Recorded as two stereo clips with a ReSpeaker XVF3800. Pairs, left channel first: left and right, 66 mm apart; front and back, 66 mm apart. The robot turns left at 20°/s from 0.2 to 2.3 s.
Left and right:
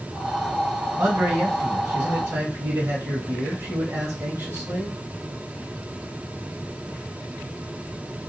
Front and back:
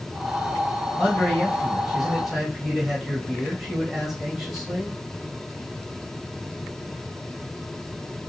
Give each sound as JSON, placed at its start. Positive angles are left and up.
{"t": 1.0, "sound": "a man speaking", "azimuth_deg": -65, "distance_m": 1.3}